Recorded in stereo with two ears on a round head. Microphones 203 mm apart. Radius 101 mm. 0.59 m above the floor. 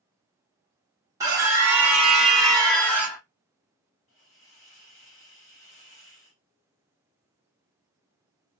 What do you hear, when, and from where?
1.2 s a scream: 15° right (ahead or behind), 0.9 m; by 3.2 s 10° left (ahead or behind), 1.2 m
4.1 s a hiss: 55° left (ahead or behind), 1.6 m